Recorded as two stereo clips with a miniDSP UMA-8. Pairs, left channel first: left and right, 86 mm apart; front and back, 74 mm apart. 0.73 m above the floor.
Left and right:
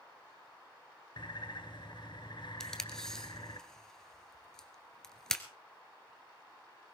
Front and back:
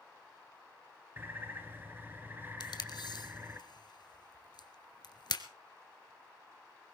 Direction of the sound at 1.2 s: 115° left.